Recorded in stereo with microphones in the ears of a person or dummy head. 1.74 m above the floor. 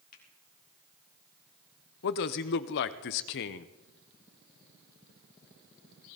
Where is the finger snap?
50° left (ahead or behind), 3.5 m.